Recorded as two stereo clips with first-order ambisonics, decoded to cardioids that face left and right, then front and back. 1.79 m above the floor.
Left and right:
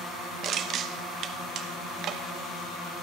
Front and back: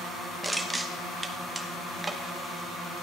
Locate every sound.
0.4 s crushing: 100° right, 1.1 m